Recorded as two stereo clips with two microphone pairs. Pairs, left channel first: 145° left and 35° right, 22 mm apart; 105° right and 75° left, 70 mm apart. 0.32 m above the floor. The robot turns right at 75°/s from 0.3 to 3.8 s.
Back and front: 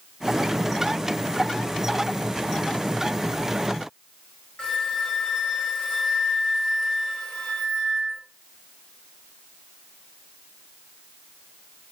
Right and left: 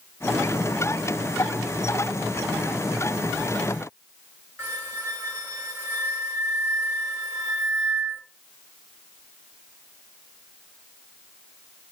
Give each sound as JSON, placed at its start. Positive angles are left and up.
{"t": 4.6, "sound": "a flute", "azimuth_deg": 130, "distance_m": 1.1}